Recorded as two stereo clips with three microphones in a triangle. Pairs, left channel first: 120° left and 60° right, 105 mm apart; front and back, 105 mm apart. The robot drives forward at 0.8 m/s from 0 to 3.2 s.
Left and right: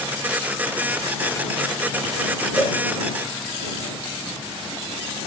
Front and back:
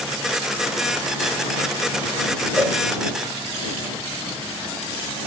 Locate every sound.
2.6 s a cowbell: 115° left, 3.5 m